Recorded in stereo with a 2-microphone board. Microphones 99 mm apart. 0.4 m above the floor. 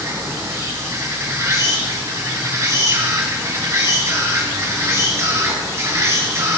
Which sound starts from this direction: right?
An insect, at 0.0 s.